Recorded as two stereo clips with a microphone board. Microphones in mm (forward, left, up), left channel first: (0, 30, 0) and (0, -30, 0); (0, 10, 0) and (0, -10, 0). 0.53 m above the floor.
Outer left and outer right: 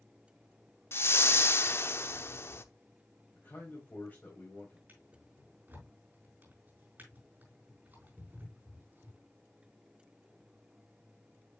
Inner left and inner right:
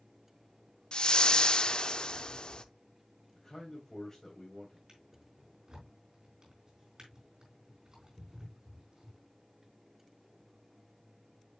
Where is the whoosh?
45° left (ahead or behind), 0.6 m.